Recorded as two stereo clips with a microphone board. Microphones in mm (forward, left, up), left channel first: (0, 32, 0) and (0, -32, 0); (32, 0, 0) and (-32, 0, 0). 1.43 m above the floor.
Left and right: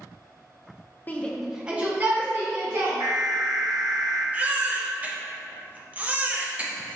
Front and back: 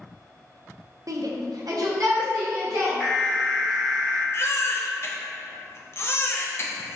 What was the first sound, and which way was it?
A shout, 150° left.